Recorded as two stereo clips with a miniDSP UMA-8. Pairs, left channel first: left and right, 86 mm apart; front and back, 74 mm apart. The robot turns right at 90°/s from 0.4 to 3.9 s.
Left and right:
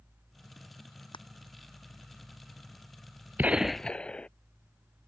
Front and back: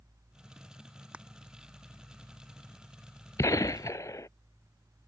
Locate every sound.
1.1 s crushing: 105° left; by 1.2 s 115° left
3.4 s a gunshot: 30° right; by 4.3 s 20° left